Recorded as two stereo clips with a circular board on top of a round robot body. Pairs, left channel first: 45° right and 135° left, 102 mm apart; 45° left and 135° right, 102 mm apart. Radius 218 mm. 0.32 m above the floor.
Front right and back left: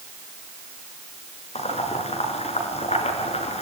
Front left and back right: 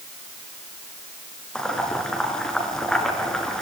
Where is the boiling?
40° right, 5.5 m.